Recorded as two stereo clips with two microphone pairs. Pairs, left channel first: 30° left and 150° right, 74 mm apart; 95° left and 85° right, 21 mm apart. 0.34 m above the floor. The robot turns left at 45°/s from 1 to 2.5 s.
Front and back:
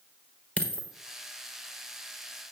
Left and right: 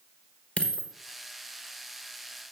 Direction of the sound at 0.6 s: 100° left.